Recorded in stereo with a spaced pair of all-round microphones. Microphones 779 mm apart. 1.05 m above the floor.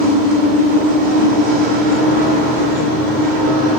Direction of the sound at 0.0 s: 80° right.